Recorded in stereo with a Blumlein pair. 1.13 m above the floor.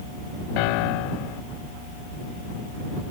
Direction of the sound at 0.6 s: 45° left.